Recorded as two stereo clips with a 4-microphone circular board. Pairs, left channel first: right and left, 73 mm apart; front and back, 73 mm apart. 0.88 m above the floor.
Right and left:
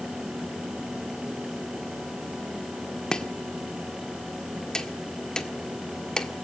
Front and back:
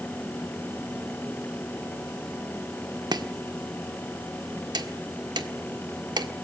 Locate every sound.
3.1 s chopping: 170° right, 1.5 m